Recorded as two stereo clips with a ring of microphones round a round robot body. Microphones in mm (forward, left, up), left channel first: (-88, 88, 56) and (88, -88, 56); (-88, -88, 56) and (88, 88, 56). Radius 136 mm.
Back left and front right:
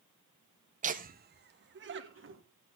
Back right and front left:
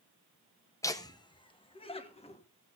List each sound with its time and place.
0.8 s laughter: 70° right, 1.0 m